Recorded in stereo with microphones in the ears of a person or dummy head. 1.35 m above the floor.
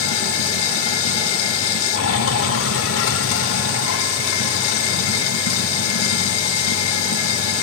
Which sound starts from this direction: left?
Running water, at 0.0 s.